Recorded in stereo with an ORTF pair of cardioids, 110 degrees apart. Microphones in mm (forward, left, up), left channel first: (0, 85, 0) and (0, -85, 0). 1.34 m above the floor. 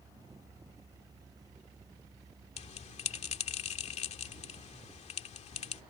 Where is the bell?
45° left.